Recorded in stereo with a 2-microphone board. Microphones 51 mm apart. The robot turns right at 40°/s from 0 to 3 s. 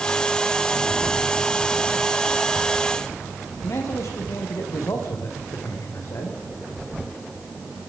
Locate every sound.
3.6 s a man speaking: 70° left (ahead or behind), 5.5 m